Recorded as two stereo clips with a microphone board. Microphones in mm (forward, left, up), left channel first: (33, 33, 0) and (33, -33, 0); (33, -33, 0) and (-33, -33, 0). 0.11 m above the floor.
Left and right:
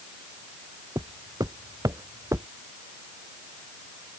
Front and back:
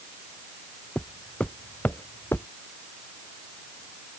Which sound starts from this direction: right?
Footsteps, at 0.9 s.